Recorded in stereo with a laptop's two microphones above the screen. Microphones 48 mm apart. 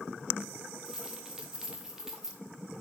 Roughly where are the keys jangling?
Centre.